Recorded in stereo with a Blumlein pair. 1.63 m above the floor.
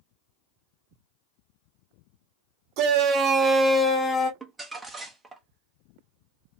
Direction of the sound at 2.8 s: 40° right.